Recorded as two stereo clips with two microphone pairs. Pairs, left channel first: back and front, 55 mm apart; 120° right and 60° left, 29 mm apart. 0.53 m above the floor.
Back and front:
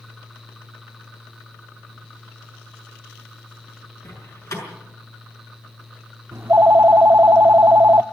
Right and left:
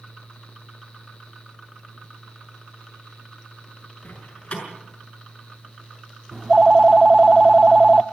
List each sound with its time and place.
4.0 s a door slam: 165° right, 6.5 m
6.3 s a phone ringing: 5° left, 0.5 m